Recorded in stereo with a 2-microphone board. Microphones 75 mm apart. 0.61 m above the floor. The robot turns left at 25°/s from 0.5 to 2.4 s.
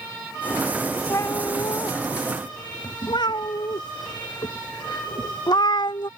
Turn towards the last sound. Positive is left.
turn(degrees=70)  # may be behind; listen again after turning